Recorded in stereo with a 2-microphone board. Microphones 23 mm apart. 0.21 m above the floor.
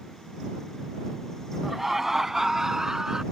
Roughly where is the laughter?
Centre.